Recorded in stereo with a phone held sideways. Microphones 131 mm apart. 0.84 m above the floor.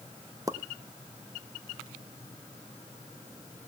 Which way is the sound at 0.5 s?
25° right (ahead or behind).